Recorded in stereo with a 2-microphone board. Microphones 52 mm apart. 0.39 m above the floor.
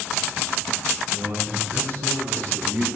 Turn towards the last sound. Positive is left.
turn(degrees=-70)  # may be behind; listen again after turning